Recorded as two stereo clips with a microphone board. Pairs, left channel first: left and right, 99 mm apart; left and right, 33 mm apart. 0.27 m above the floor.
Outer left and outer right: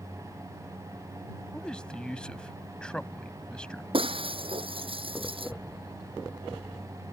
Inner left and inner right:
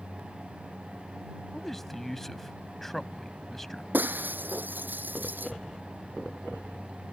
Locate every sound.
1.5 s a man speaking: 10° left (ahead or behind)
3.9 s breaking glass: 65° right (ahead or behind)